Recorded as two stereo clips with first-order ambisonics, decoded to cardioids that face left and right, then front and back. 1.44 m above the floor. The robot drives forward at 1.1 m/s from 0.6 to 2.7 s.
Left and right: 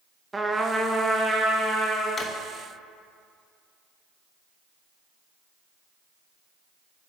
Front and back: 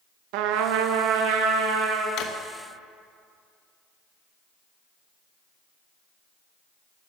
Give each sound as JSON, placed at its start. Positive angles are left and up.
{"t": 0.3, "sound": "a trumpet", "azimuth_deg": -170, "distance_m": 0.8}
{"t": 2.2, "sound": "a drawer", "azimuth_deg": 25, "distance_m": 1.0}